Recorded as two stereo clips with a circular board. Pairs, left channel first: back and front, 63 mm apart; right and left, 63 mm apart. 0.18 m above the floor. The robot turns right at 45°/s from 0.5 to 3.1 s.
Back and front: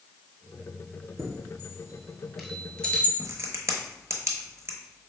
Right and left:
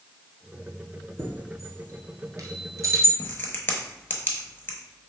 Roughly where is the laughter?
No laughter in this recording.